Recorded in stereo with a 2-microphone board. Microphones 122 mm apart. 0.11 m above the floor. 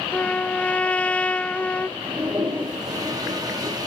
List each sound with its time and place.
0.1 s a trumpet: 10° left (ahead or behind), 0.6 m
2.0 s a toilet flushing: 30° right (ahead or behind), 4 m